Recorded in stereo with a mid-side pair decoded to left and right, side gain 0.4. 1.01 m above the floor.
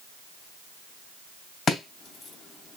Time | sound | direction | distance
1.7 | chopping | 50° left | 3 m